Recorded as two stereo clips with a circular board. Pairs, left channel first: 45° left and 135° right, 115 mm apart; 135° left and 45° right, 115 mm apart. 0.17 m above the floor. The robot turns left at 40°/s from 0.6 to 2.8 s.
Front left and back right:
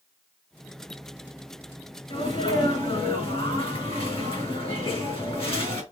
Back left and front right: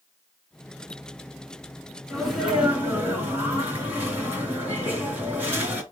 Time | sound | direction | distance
2.1 | a sneeze | 55° left | 2.5 m